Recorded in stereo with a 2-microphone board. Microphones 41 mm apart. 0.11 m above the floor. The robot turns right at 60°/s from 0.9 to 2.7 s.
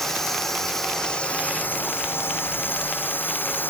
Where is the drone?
10° left; by 3.7 s 120° left.